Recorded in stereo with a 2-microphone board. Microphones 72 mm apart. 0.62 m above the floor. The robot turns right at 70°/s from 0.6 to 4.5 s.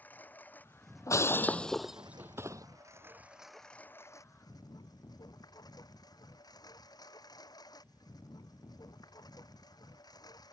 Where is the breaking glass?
50° left (ahead or behind); by 2.7 s 55° right (ahead or behind).